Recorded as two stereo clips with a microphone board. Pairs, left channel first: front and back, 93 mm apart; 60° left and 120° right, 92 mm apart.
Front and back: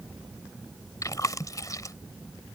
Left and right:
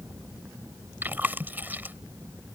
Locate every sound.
1.0 s chewing: 50° right